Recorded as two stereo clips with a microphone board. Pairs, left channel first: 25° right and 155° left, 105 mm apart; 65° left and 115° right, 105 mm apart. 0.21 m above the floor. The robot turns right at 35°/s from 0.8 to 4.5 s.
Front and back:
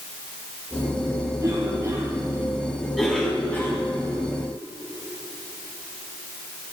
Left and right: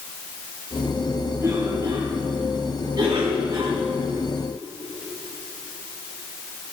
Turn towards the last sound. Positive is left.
turn(degrees=-60)